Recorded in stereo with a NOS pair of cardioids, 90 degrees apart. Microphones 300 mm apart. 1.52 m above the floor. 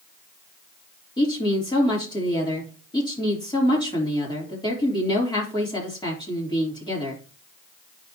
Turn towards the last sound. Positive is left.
turn(degrees=15)